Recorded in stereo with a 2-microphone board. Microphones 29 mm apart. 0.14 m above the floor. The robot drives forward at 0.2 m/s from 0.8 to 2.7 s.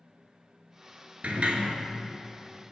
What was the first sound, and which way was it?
A sliding door, 60° right (ahead or behind).